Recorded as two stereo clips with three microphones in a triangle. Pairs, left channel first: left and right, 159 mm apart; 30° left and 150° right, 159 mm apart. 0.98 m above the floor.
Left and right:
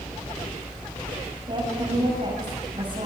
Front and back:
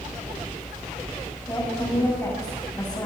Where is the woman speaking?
40° right, 7 m.